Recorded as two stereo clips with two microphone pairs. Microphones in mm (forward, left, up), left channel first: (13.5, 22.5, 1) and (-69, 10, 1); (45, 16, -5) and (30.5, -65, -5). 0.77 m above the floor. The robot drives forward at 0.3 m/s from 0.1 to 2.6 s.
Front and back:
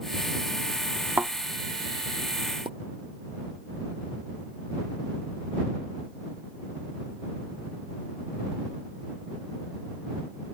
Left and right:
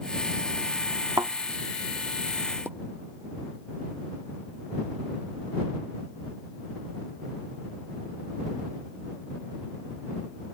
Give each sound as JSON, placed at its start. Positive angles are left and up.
{"t": 1.2, "sound": "a thud", "azimuth_deg": -110}
{"t": 2.6, "sound": "a pop", "azimuth_deg": -165}